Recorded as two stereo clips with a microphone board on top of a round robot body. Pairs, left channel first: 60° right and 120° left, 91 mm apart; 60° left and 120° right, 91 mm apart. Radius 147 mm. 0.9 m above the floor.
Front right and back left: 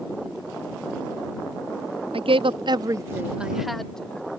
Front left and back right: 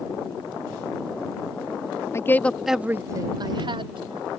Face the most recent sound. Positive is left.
turn(degrees=-140)